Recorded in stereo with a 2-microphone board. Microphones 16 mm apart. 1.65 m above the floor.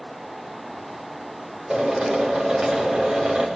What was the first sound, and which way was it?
A drill, 85° right.